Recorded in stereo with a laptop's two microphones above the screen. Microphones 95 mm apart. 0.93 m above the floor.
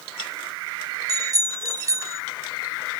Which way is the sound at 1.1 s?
40° right (ahead or behind).